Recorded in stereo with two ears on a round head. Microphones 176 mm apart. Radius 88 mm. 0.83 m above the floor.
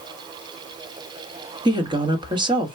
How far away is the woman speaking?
About 1.1 m.